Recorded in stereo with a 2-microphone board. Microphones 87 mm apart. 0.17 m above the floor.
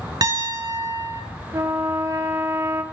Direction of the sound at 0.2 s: 50° right (ahead or behind).